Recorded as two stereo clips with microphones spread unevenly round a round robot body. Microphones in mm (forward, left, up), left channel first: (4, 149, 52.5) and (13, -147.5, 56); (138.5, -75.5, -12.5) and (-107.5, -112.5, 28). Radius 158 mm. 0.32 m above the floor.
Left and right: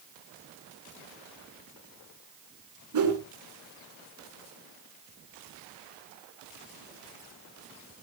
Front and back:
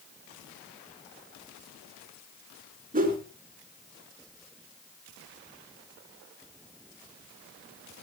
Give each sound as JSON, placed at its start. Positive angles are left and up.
{"t": 2.9, "sound": "a whoosh", "azimuth_deg": -115, "distance_m": 5.0}